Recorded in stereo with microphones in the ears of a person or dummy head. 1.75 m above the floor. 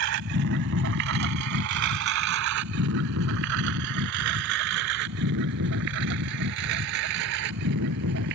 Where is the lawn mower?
70° right (ahead or behind).